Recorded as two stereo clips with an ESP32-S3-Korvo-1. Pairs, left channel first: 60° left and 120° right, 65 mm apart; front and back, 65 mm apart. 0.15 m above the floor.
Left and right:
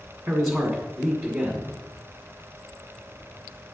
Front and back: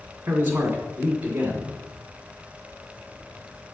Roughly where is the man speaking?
Behind.